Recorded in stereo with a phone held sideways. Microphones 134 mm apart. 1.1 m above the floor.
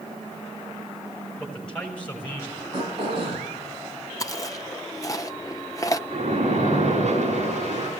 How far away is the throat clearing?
About 9 m.